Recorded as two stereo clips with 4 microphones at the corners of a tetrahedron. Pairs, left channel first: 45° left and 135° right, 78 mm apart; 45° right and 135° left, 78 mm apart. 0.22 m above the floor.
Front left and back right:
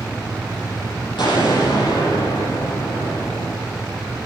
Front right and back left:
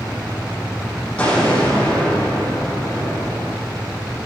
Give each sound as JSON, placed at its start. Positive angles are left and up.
{"t": 1.2, "sound": "an explosion", "azimuth_deg": 30, "distance_m": 7.0}